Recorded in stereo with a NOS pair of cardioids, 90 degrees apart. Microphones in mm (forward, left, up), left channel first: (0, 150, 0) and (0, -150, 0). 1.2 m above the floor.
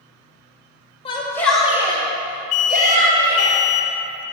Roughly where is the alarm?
Ahead left.